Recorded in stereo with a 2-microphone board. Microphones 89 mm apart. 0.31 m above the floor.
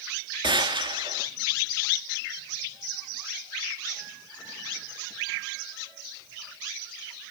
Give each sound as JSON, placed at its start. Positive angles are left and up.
{"t": 0.4, "sound": "a gunshot", "side_deg": -80, "distance_m": 2.5}